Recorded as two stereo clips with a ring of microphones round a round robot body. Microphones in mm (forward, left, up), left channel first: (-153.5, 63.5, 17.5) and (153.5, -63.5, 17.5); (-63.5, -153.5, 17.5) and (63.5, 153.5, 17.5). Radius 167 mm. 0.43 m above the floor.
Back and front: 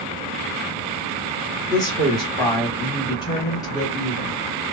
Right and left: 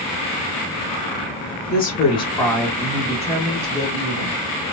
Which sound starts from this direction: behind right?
A woman speaking, at 1.7 s.